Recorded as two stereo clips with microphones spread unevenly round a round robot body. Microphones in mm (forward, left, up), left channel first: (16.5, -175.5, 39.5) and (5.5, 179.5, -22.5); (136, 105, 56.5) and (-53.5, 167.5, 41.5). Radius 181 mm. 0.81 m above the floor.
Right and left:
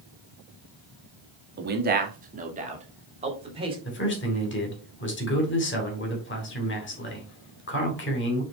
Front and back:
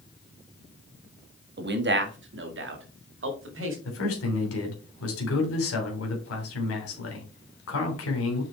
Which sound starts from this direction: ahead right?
A man speaking, at 3.9 s.